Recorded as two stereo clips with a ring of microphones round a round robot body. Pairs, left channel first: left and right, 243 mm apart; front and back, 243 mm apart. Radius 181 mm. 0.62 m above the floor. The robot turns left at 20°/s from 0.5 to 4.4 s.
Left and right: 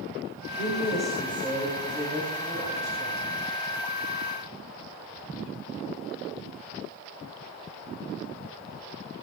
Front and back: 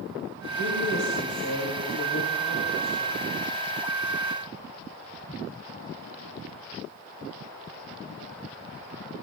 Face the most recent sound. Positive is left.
turn(degrees=-80)